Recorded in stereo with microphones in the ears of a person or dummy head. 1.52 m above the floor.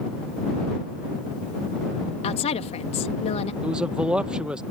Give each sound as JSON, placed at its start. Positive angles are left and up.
{"t": 2.2, "sound": "a woman speaking", "side_deg": 35}
{"t": 3.6, "sound": "a man speaking", "side_deg": 0}